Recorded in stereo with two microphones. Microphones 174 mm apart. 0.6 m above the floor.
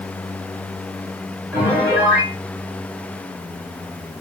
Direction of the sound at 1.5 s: 10° right (ahead or behind).